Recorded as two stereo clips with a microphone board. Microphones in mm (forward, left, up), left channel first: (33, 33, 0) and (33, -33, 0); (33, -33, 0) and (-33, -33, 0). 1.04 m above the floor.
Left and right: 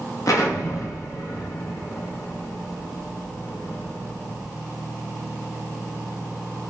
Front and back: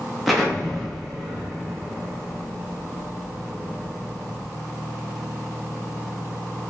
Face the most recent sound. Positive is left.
turn(degrees=90)